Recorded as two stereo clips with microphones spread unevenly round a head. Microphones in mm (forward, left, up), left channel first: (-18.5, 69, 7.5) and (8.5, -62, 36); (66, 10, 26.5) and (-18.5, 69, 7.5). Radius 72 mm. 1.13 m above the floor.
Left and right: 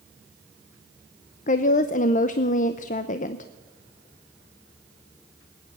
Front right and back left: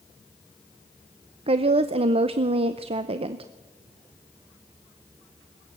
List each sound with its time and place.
1.5 s a woman speaking: 125° left, 0.7 m